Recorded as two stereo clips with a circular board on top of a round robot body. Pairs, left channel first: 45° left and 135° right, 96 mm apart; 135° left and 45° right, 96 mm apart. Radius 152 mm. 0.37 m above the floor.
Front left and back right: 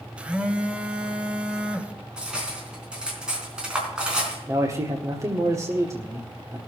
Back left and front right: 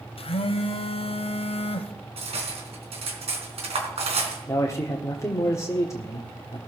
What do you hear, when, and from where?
0.2 s a phone buzzing: 145° left, 1.2 m
2.2 s cutlery clinking: 55° right, 3.5 m
4.5 s a man speaking: straight behind, 1.8 m